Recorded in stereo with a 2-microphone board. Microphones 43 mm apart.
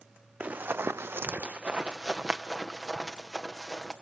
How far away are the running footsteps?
About 0.7 m.